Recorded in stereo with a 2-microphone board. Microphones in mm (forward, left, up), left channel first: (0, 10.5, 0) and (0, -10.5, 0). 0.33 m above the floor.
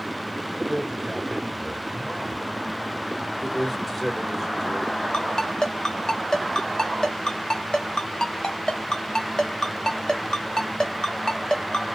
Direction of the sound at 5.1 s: 40° left (ahead or behind).